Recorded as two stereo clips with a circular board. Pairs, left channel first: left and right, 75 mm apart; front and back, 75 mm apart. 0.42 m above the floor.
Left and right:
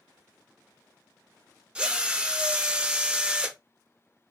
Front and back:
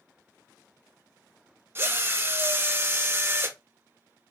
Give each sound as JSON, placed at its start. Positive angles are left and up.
{"t": 1.8, "sound": "a drill", "azimuth_deg": -155, "distance_m": 0.6}